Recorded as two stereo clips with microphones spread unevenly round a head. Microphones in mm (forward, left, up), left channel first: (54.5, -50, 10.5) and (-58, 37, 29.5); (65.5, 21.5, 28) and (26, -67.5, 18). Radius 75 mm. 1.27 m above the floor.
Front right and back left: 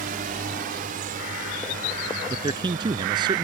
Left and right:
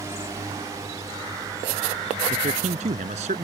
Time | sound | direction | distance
0.0 | a drone | 175° left | ?
2.3 | a man speaking | 155° right | ?